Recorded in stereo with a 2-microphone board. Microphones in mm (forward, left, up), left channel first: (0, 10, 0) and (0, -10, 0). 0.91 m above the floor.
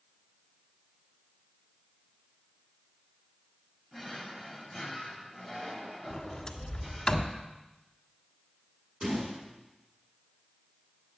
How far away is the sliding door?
About 1.6 m.